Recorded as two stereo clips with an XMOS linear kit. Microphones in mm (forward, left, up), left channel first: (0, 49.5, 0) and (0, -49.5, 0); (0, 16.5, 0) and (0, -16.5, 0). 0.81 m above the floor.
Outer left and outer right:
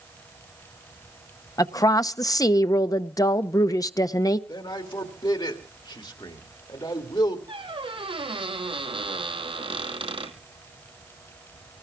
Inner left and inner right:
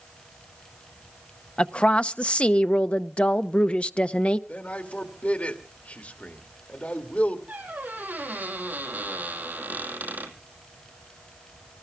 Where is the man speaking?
50° left (ahead or behind), 1.9 m.